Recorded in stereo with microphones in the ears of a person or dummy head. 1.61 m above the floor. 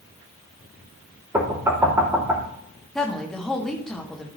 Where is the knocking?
15° right (ahead or behind), 3 m.